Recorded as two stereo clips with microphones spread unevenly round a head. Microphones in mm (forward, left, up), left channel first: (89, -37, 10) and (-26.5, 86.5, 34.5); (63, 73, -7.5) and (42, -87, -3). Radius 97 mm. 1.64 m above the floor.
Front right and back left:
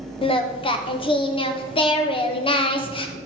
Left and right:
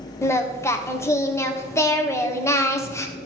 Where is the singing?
10° left, 1.3 m.